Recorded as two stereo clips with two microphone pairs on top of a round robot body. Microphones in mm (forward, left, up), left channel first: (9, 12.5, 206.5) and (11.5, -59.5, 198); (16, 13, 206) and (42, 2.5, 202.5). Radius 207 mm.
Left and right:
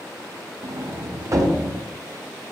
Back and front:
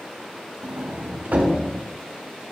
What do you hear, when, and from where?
0.6 s a sliding door: 40° right, 0.8 m